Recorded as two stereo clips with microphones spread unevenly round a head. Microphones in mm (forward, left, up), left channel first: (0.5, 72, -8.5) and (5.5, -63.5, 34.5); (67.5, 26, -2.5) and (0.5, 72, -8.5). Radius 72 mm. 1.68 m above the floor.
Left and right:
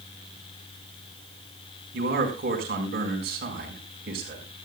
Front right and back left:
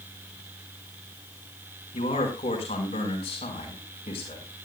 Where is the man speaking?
65° right, 5 m.